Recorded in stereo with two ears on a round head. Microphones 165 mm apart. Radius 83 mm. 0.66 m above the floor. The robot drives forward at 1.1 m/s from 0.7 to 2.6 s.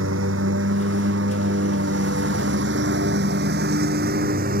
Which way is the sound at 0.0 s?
75° right (ahead or behind).